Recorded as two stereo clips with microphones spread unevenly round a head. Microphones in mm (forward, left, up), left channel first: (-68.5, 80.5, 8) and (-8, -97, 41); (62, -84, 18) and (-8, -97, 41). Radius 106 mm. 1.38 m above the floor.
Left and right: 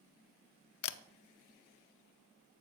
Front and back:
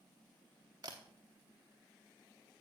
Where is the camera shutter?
120° left, 0.7 m.